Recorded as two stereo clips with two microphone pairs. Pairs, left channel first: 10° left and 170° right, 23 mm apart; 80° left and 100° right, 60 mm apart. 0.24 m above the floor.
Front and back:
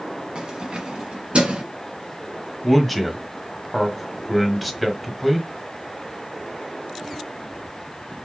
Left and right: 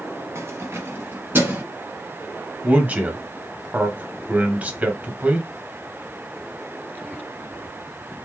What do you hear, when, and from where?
0.3 s keys jangling: 125° right, 1.2 m; by 1.6 s 150° right, 1.7 m
2.6 s a man speaking: 75° right, 1.0 m